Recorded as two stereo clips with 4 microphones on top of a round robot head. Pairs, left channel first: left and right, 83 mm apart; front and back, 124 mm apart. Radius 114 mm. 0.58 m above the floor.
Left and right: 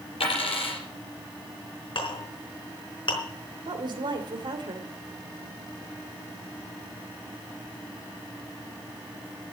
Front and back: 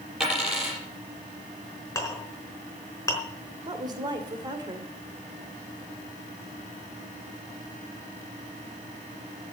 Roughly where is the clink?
Ahead left.